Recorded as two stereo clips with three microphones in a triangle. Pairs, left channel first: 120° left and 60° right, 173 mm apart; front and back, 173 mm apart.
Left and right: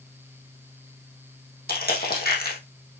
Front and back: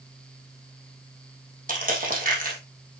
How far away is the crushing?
About 3 m.